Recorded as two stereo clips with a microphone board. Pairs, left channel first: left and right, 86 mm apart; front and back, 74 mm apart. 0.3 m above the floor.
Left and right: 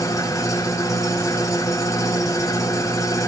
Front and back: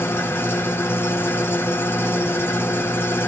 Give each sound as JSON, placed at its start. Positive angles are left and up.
{"t": 0.0, "sound": "an engine running", "azimuth_deg": 50, "distance_m": 1.2}